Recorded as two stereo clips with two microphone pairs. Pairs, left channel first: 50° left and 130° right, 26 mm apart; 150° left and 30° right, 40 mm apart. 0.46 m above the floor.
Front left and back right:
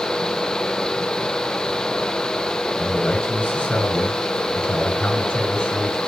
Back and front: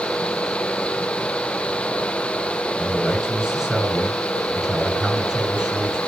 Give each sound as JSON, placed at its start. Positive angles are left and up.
{"t": 2.8, "sound": "a man speaking", "azimuth_deg": 50, "distance_m": 6.0}